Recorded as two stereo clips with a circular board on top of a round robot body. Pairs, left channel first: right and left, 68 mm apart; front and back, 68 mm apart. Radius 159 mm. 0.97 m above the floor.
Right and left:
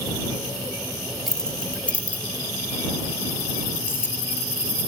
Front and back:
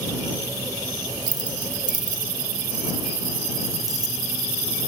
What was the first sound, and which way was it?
Keys jangling, 175° right.